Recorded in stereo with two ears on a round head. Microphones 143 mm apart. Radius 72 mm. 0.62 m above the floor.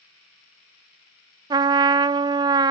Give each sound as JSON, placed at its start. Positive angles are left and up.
{"t": 1.5, "sound": "a trumpet", "side_deg": -25, "distance_m": 0.5}